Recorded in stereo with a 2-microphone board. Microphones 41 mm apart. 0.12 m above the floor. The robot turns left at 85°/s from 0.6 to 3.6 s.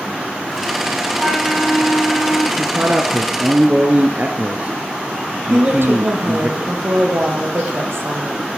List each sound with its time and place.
1.2 s a flute: straight behind, 8 m; by 2.5 s 70° left, 8 m
2.6 s a man speaking: 40° right, 1.5 m; by 6.5 s 130° right, 1.5 m
5.5 s a woman speaking: 70° right (ahead or behind), 4 m